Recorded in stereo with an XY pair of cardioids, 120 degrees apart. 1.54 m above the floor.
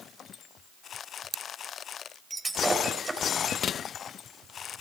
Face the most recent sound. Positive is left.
turn(degrees=-10)